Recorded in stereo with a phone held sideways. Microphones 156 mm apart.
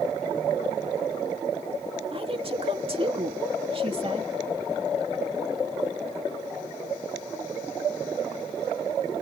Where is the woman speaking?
40° right (ahead or behind).